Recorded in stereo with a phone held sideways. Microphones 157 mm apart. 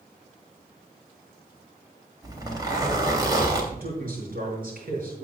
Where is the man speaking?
65° right (ahead or behind), 6 m.